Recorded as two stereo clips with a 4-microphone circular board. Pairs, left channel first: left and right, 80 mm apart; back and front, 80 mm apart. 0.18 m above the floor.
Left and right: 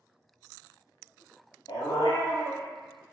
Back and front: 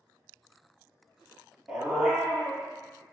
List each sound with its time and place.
1.7 s a dog barking: 80° left, 1.0 m